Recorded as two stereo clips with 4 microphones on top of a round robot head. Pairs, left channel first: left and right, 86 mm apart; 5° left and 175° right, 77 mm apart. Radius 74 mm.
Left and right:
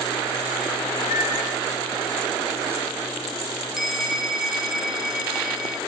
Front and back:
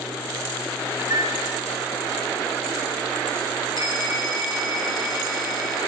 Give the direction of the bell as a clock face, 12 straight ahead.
12 o'clock.